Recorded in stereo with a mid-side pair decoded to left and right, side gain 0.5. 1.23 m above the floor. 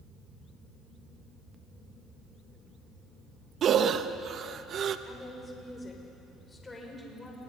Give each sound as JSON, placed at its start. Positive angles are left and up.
{"t": 3.6, "sound": "breathing", "azimuth_deg": -55, "distance_m": 1.0}
{"t": 5.1, "sound": "a woman speaking", "azimuth_deg": 20, "distance_m": 5.0}